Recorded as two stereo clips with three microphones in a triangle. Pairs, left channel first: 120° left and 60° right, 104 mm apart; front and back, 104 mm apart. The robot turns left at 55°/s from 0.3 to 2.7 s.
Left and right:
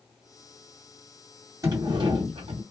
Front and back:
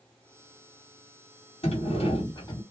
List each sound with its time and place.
1.6 s a sliding door: 5° right, 1.9 m; by 2.6 s 55° right, 1.9 m